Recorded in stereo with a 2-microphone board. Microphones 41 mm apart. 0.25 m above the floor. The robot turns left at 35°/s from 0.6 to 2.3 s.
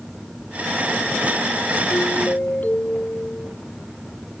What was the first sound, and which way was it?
A doorbell, 60° left (ahead or behind).